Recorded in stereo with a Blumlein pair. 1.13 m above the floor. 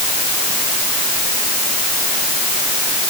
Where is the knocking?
I don't hear knocking.